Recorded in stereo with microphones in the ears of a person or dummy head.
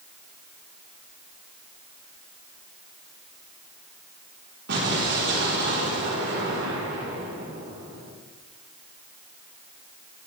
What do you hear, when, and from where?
4.7 s an explosion: 65° right (ahead or behind), 3.5 m